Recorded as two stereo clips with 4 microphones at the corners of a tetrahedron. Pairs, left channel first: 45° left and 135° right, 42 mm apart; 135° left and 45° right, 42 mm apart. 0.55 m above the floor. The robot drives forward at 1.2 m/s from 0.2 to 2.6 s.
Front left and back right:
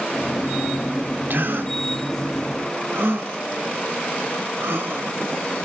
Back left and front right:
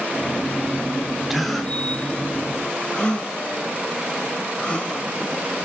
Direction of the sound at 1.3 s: 130° right.